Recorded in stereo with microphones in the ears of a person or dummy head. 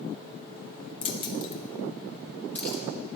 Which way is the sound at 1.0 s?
30° left (ahead or behind).